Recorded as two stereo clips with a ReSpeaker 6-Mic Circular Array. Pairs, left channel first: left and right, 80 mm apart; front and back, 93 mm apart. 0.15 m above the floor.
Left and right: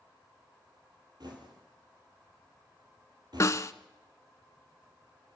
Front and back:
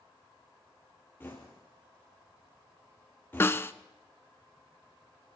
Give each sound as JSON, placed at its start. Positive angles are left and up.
{"t": 1.2, "sound": "knocking", "azimuth_deg": -65, "distance_m": 4.0}
{"t": 3.4, "sound": "a snare drum", "azimuth_deg": 55, "distance_m": 0.6}